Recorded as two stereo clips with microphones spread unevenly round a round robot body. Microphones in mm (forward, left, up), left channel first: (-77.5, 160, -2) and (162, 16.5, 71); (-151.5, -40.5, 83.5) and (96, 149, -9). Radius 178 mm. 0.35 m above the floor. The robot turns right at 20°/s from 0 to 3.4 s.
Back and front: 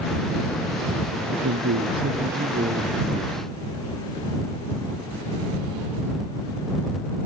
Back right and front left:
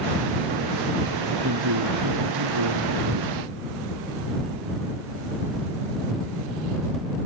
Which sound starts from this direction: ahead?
A man speaking, at 1.2 s.